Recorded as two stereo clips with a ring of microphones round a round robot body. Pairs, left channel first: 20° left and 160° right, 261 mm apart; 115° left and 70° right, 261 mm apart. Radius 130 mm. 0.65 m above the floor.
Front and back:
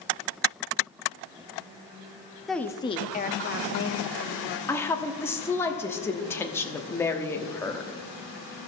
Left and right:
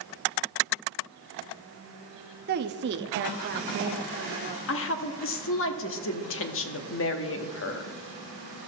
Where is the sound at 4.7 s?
100° left, 1.0 m.